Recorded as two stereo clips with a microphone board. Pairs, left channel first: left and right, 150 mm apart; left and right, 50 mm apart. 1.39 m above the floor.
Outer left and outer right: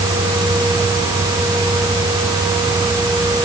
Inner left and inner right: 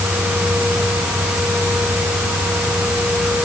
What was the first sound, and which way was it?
Only background noise.